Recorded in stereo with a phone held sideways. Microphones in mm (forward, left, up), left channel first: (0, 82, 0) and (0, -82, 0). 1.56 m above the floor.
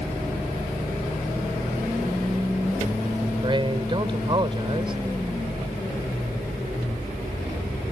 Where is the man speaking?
30° right (ahead or behind).